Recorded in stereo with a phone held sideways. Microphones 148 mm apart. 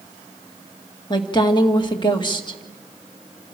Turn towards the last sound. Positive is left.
turn(degrees=30)  # may be behind; listen again after turning